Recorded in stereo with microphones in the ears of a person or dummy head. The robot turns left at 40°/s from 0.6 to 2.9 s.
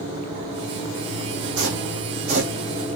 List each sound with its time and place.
1.6 s footsteps: 75° right (ahead or behind), 5.5 m; by 2.5 s 50° right (ahead or behind), 5.5 m